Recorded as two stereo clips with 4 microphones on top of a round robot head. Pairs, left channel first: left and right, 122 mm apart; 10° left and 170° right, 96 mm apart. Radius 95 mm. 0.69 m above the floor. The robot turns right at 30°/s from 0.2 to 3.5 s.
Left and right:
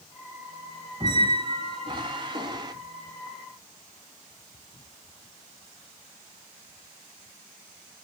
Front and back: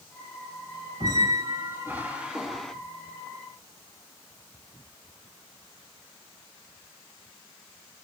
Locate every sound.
1.0 s a squeak: 130° right, 0.6 m; by 2.7 s 75° right, 0.6 m